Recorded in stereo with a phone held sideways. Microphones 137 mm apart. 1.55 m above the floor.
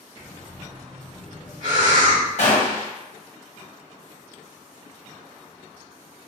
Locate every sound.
0.2 s breathing: 60° right (ahead or behind), 1.9 m
2.4 s a gunshot: 50° left (ahead or behind), 1.2 m